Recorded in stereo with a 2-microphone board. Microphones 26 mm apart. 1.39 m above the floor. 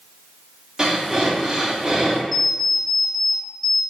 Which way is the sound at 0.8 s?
30° right (ahead or behind).